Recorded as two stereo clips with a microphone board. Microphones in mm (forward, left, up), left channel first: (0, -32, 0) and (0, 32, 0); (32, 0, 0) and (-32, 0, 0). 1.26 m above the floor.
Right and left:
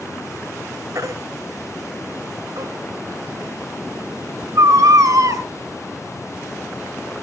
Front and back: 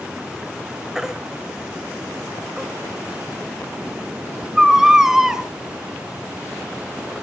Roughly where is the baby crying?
Left.